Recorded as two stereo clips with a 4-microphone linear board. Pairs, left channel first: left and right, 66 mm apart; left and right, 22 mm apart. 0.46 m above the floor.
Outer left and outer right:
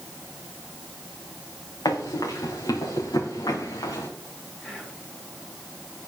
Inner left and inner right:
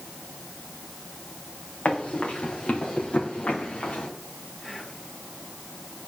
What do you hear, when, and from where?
1.9 s running footsteps: 85° left, 4.5 m; by 4.1 s 80° left, 4 m
4.6 s whispering: 10° left (ahead or behind), 7.5 m